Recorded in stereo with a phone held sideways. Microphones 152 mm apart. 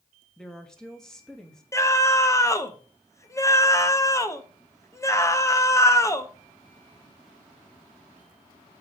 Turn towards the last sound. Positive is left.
turn(degrees=20)  # may be behind; listen again after turning